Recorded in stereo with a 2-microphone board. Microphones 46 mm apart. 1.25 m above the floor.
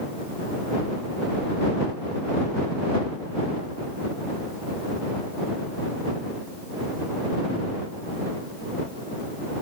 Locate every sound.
Only background noise.